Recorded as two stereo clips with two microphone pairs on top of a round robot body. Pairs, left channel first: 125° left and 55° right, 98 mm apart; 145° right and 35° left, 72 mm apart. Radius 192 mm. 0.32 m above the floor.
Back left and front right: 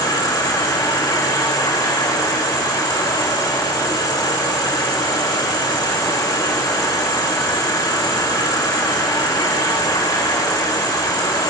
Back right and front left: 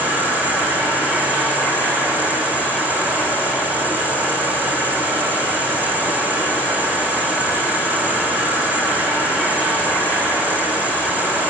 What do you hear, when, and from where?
0.0 s an insect: 95° left, 3.5 m